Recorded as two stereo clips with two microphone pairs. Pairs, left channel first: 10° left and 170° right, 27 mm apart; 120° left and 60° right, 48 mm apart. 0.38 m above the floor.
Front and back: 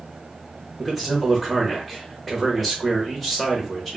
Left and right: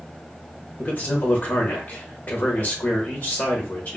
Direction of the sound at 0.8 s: 100° left.